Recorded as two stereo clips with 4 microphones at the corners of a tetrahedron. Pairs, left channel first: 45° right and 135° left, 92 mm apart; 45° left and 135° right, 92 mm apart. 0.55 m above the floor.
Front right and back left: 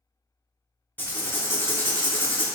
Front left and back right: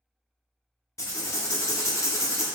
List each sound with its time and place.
1.0 s writing: 5° left, 0.5 m